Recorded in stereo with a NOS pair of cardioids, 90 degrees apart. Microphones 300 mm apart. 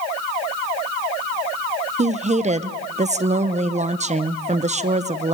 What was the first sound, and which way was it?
A woman speaking, 25° right.